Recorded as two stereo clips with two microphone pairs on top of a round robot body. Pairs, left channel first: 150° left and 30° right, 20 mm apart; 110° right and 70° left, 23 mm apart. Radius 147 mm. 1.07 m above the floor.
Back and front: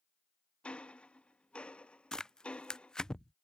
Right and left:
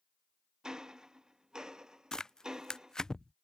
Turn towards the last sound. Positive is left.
turn(degrees=-165)